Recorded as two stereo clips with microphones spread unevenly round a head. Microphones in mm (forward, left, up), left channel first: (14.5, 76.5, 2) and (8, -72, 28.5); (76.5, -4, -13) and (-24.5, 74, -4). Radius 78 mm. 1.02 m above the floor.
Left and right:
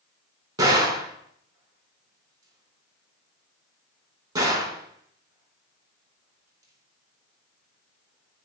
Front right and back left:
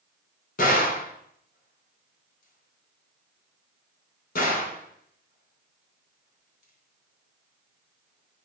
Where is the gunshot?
30° right, 4 m.